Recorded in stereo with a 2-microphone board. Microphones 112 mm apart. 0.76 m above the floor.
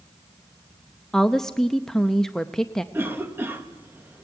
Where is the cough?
20° right (ahead or behind), 0.9 m.